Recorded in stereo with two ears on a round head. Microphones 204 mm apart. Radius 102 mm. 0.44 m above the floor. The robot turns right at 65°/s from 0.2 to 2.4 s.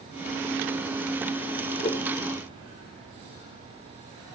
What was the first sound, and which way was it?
A whoosh, 25° left (ahead or behind).